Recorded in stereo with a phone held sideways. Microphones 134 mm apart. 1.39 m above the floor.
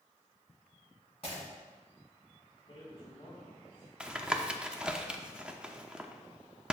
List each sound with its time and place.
1.2 s breaking glass: 50° left (ahead or behind), 3 m
2.7 s a man speaking: 45° left (ahead or behind), 3.5 m
4.0 s tapping: 10° right (ahead or behind), 0.6 m